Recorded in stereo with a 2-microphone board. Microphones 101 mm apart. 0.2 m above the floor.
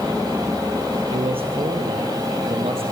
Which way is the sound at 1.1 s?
65° right (ahead or behind).